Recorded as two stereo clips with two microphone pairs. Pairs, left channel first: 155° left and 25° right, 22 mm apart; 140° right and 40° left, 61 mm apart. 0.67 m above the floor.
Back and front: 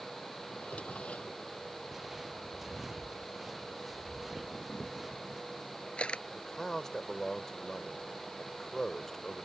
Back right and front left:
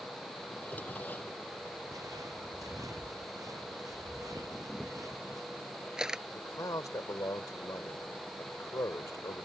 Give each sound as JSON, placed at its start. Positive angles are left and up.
{"t": 0.5, "sound": "a drawer", "azimuth_deg": 160}
{"t": 1.9, "sound": "footsteps", "azimuth_deg": 45}
{"t": 4.5, "sound": "a camera shutter", "azimuth_deg": 120}
{"t": 6.3, "sound": "a man speaking", "azimuth_deg": -140}